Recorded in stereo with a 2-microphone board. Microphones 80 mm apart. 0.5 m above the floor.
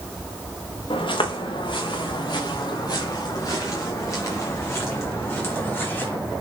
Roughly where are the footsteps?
Left.